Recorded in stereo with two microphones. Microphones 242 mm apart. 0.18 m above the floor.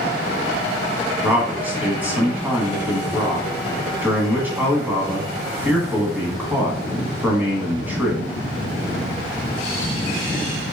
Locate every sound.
1.2 s a man speaking: 10° right (ahead or behind), 1.0 m